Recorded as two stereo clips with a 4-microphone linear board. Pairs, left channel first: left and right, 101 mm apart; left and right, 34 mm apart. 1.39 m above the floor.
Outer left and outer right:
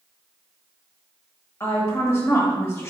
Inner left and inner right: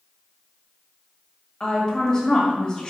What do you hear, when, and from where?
1.6 s a woman speaking: 25° left (ahead or behind), 1.4 m